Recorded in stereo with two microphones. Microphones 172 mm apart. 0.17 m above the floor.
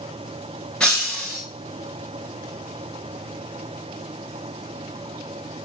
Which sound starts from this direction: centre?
Breaking glass, at 0.8 s.